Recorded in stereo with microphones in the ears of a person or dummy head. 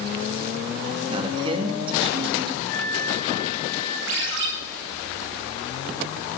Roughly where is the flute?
Centre.